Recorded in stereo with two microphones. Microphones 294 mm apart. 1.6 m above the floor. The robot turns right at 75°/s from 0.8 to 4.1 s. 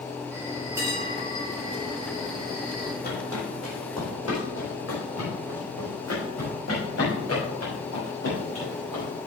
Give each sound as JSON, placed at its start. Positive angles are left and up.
{"t": 0.3, "sound": "a bell", "azimuth_deg": -170, "distance_m": 2.5}
{"t": 3.0, "sound": "footsteps", "side_deg": 30, "distance_m": 3.5}